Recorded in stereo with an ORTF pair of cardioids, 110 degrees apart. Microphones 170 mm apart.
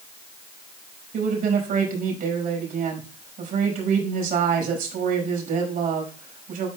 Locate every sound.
1.1 s a woman speaking: 55° right, 5.5 m